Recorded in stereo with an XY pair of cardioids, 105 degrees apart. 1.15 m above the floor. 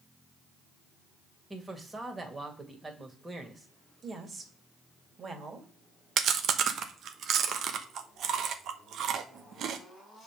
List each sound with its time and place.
1.5 s a man speaking: 20° right, 2 m
4.0 s a woman speaking: 40° right, 2 m
6.2 s chewing: 65° right, 0.9 m